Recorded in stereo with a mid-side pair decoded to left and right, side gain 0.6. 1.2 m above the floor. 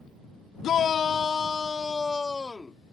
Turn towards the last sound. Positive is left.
turn(degrees=15)